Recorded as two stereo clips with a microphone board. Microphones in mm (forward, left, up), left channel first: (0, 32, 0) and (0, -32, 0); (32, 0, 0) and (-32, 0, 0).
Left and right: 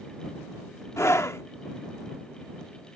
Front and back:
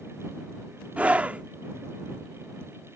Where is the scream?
120° left.